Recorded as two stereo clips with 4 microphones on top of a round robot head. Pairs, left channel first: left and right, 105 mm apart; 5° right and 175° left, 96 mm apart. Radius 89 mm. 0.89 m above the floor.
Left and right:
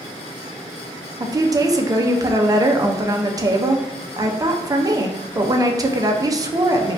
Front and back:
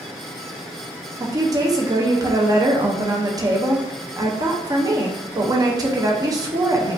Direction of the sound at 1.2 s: 140° right.